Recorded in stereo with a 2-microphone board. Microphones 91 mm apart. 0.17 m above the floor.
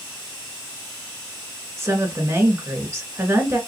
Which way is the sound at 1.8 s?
30° right (ahead or behind).